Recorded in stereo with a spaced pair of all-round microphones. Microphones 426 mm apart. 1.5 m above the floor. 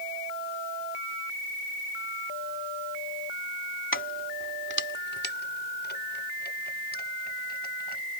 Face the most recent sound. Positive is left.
turn(degrees=20)  # may be behind; listen again after turning